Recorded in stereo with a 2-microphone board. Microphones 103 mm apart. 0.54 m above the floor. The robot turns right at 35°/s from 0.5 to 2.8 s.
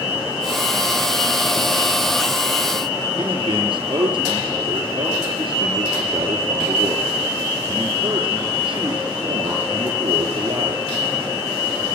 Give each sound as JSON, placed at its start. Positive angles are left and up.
{"t": 3.2, "sound": "a man speaking", "side_deg": -55, "distance_m": 8.5}